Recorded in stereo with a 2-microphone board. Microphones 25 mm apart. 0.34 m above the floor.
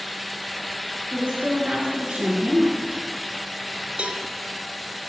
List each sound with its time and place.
1.1 s a woman speaking: 30° right (ahead or behind), 4.5 m
4.0 s a cowbell: 50° right (ahead or behind), 1.5 m